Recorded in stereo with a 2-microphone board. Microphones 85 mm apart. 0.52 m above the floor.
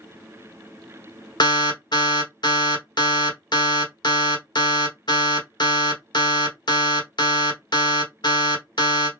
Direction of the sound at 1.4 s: 60° left (ahead or behind).